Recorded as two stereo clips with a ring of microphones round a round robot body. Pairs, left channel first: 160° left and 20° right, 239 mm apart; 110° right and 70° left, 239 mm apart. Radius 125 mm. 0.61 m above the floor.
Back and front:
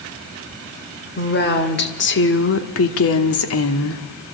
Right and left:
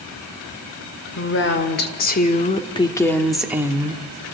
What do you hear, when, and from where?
1.1 s a woman speaking: 150° right, 2.5 m; by 4.0 s 130° left, 1.5 m